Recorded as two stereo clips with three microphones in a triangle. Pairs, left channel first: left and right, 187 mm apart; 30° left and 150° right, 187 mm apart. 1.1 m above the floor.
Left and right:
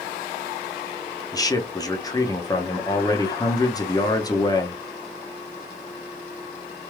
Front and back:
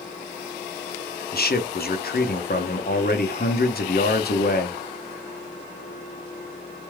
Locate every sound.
1.3 s a man speaking: 25° left, 0.8 m